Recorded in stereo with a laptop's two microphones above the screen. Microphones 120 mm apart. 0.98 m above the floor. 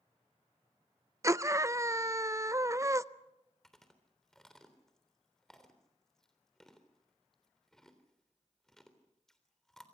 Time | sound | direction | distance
1.2 | a scream | 25° right (ahead or behind) | 0.5 m
3.6 | chewing | 5° left (ahead or behind) | 3.5 m